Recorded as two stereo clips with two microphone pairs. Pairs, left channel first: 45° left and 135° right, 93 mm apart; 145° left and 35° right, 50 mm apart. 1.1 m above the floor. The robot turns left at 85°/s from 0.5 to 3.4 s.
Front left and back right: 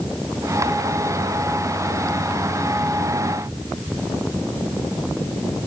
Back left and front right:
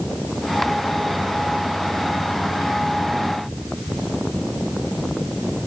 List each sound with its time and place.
Only background noise.